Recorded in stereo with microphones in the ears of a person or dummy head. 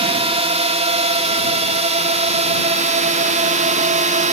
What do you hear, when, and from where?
0.0 s a drone: 35° right (ahead or behind); by 4.3 s 40° right (ahead or behind)